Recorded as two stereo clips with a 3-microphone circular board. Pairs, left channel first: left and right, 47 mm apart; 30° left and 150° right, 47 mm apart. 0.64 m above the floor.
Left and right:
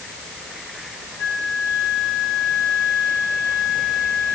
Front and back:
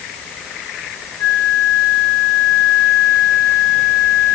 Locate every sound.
1.2 s a flute: 15° left, 6 m